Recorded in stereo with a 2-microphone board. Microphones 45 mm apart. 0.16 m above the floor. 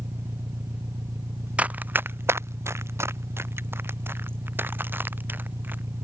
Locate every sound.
0.0 s an engine running: 75° right (ahead or behind)
1.6 s running footsteps: 30° right (ahead or behind); by 5.8 s 50° right (ahead or behind)